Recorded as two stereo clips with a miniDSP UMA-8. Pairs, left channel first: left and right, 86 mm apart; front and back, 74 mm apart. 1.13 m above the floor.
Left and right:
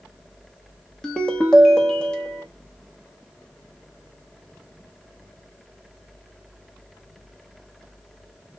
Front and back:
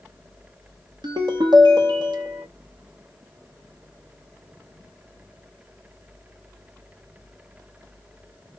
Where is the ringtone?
170° left, 0.9 m.